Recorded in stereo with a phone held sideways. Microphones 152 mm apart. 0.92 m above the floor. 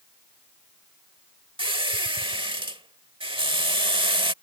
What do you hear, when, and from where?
1.6 s a squeak: 35° right (ahead or behind)